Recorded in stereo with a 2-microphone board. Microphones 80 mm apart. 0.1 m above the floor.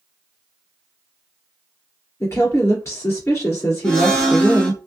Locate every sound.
2.2 s a woman speaking: 40° left (ahead or behind), 1.8 m
3.8 s a blender: 10° left (ahead or behind), 1.4 m